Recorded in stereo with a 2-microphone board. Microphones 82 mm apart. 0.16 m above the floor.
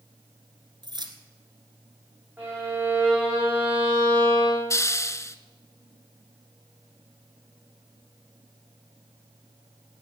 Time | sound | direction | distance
0.8 | keys jangling | 60° right (ahead or behind) | 1.5 m
2.4 | a violin | 25° right (ahead or behind) | 5 m
4.7 | a hiss | 35° left (ahead or behind) | 0.6 m